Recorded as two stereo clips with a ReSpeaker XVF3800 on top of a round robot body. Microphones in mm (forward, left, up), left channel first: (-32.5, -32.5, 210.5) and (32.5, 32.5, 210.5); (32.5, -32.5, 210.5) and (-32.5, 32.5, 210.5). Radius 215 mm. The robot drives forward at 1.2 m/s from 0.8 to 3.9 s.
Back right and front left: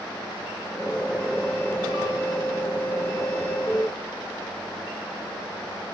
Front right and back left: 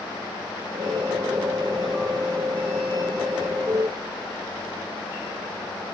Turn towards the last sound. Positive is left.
No sound to turn to.